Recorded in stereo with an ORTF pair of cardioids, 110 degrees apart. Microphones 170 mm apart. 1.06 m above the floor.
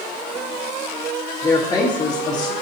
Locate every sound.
1.4 s a woman speaking: 25° left, 1.2 m